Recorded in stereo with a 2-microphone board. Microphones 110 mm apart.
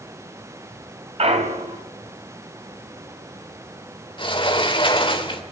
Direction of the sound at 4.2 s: 50° left (ahead or behind).